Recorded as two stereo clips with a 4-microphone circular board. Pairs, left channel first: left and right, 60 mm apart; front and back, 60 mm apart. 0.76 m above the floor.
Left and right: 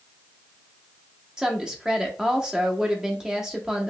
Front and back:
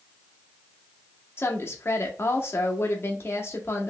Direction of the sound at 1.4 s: 15° right.